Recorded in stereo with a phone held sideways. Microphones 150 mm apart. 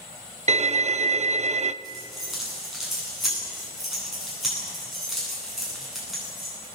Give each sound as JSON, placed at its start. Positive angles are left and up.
{"t": 0.5, "sound": "a violin", "side_deg": -50, "distance_m": 0.7}
{"t": 1.8, "sound": "keys jangling", "side_deg": 0, "distance_m": 10.0}